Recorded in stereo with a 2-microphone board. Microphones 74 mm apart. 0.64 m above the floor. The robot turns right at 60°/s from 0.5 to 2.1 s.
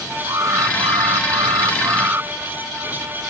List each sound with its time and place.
0.3 s an alarm: 130° right; by 2.3 s 35° right